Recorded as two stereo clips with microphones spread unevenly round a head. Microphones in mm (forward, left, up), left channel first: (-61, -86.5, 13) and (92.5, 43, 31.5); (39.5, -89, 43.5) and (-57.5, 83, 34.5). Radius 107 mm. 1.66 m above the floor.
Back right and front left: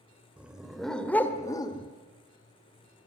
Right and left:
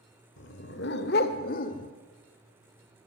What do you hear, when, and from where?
0.4 s a dog barking: 40° right, 2 m; by 1.9 s 85° right, 1.5 m